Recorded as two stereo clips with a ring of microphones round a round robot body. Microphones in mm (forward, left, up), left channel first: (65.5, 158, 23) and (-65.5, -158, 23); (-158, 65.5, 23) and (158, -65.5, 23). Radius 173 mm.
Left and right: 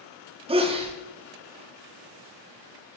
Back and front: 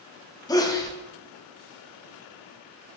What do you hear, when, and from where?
0.5 s a sneeze: 145° right, 0.8 m